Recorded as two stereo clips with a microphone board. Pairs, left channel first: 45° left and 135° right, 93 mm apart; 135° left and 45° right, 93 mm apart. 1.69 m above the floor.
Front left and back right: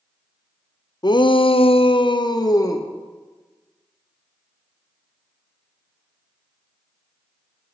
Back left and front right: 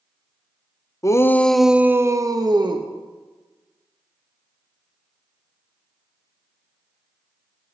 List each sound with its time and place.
1.0 s a shout: 85° left, 0.6 m; by 2.9 s 10° right, 1.0 m